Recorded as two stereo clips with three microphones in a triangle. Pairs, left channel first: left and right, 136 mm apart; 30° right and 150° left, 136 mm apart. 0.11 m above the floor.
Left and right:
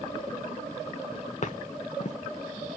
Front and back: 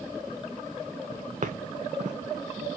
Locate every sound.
1.4 s footsteps: 120° left, 0.5 m